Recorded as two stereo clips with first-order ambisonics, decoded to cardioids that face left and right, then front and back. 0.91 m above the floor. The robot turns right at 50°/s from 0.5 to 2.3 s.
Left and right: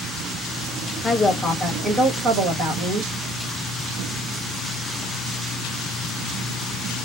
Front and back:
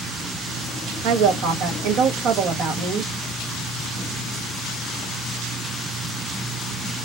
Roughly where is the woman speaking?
Behind.